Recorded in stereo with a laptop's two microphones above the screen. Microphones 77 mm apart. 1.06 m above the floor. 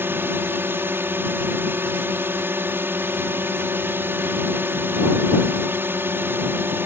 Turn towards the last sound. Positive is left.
turn(degrees=-30)  # may be behind; listen again after turning